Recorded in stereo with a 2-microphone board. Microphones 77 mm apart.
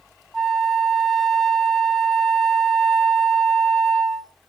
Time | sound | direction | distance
0.3 | a flute | 5° left (ahead or behind) | 0.9 m